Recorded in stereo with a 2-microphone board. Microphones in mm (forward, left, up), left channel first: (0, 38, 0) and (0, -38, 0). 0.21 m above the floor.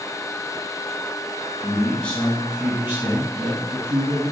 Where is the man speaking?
35° left (ahead or behind), 1.3 m; by 4.3 s 65° right (ahead or behind), 2.5 m.